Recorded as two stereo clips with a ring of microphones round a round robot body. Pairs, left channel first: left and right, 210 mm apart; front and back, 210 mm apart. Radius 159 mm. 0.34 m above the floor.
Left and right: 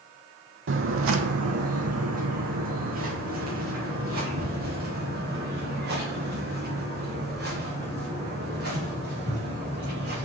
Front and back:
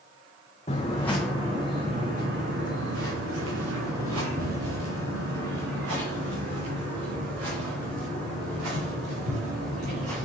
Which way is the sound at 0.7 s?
70° right.